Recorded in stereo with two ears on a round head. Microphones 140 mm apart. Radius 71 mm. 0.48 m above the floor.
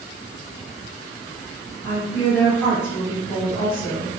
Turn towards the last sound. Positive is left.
turn(degrees=15)  # may be behind; listen again after turning